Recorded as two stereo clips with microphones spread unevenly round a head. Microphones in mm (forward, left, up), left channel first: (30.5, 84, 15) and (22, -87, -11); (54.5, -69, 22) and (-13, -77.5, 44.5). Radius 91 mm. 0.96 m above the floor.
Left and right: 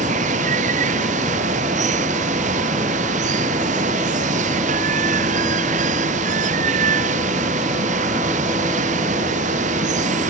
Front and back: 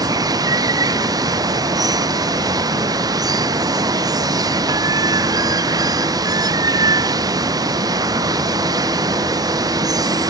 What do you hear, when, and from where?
0.0 s running water: 145° right